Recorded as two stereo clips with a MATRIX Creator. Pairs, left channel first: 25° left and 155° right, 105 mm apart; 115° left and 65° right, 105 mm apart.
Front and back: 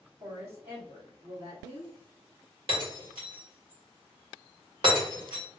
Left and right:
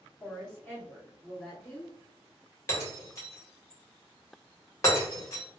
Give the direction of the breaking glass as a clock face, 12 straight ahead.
6 o'clock.